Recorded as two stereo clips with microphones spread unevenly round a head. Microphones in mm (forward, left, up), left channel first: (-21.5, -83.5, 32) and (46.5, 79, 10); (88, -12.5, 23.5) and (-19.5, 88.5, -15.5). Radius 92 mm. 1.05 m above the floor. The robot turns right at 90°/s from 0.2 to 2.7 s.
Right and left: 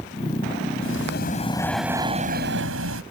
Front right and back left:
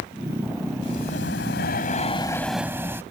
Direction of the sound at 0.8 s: 110° right.